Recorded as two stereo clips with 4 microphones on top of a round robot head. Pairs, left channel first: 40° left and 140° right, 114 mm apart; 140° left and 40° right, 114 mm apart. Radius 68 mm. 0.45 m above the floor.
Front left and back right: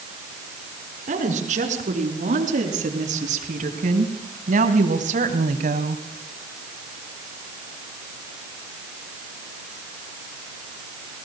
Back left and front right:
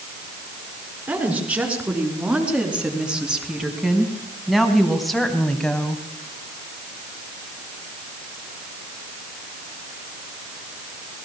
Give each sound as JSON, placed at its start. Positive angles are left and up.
{"t": 1.1, "sound": "a woman speaking", "azimuth_deg": -120, "distance_m": 6.5}